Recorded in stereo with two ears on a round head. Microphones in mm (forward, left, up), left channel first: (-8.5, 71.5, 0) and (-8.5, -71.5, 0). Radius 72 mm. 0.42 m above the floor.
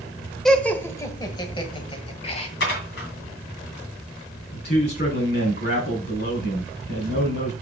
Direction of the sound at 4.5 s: 65° left (ahead or behind).